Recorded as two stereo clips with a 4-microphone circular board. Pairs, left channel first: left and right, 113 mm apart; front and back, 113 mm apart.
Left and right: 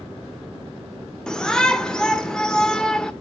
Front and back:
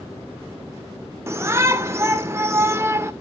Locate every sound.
1.3 s a shout: 165° left, 0.8 m